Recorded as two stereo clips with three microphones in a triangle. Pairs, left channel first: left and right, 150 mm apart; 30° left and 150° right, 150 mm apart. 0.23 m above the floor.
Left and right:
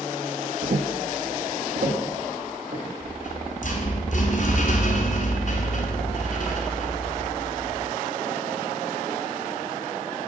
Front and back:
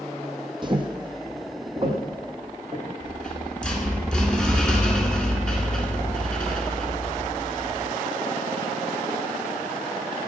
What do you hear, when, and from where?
0.6 s footsteps: 90° right, 0.6 m
3.0 s a rattle: 115° left, 1.2 m